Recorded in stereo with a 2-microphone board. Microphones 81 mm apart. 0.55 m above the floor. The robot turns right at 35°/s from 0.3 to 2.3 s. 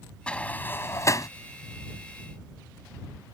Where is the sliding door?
15° left (ahead or behind); by 1.3 s 45° left (ahead or behind).